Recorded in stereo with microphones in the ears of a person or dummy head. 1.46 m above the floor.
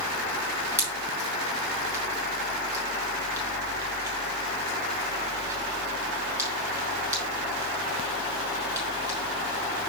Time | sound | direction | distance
0.8 | a pop | 20° right (ahead or behind) | 4 m